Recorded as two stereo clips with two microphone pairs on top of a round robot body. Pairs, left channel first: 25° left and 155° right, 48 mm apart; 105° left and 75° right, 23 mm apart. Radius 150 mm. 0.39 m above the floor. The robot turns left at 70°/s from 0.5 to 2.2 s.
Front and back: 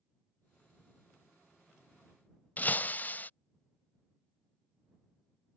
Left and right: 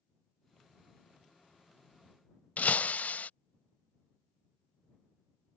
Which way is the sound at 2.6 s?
85° left.